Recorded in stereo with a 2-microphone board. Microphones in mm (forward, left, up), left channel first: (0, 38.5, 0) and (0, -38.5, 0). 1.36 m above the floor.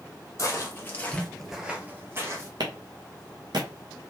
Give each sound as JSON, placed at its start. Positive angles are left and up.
{"t": 0.4, "sound": "footsteps", "side_deg": 40, "distance_m": 2.0}
{"t": 2.6, "sound": "a clap", "side_deg": -65, "distance_m": 1.3}